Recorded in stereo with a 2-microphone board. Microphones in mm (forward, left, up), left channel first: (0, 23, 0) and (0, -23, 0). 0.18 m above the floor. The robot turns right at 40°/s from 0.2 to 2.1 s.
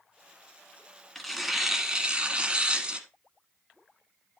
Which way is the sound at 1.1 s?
175° left.